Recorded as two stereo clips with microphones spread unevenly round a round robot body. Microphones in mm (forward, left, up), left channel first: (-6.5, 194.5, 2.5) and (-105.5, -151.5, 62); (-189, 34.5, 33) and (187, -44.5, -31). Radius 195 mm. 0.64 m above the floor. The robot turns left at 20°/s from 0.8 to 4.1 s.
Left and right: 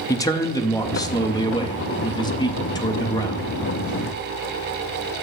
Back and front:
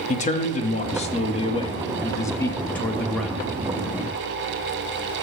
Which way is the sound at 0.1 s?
100° left.